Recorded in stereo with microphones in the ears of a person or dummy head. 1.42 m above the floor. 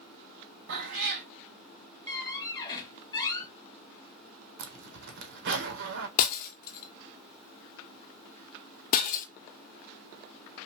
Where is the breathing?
No breathing in this recording.